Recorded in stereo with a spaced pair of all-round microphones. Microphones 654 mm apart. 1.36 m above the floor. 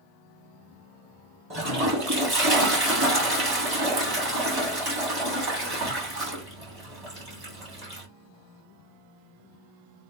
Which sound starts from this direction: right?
A toilet flushing, at 1.5 s.